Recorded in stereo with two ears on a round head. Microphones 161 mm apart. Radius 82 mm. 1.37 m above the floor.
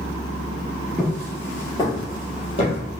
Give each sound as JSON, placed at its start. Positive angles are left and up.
{"t": 1.0, "sound": "footsteps", "side_deg": 5, "distance_m": 1.4}